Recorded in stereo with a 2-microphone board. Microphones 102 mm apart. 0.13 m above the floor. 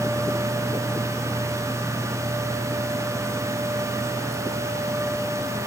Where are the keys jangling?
No keys jangling in this recording.